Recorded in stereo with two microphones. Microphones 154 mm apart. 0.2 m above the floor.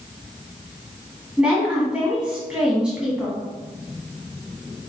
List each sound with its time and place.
1.4 s a woman speaking: 5° right (ahead or behind), 1.5 m